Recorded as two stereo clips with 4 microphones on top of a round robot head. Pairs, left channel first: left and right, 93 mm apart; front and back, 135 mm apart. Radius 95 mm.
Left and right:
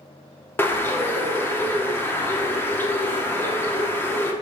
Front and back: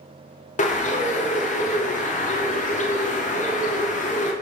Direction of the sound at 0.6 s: 25° left.